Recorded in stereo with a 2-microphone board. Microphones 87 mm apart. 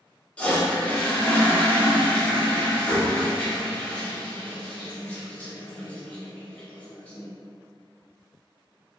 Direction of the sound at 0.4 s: 15° left (ahead or behind).